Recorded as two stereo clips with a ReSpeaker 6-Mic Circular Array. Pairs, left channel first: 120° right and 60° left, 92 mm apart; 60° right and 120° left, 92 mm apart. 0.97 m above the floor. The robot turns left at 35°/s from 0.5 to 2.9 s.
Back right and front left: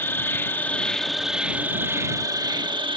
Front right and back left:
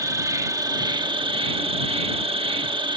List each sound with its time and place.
0.0 s an insect: 175° left; by 3.0 s 90° left